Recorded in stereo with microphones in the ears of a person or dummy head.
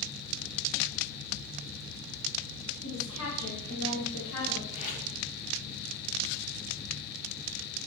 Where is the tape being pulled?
50° left (ahead or behind), 1.5 m.